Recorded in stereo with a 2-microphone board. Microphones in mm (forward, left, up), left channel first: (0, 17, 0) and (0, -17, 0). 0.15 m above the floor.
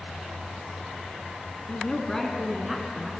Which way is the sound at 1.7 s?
30° left (ahead or behind).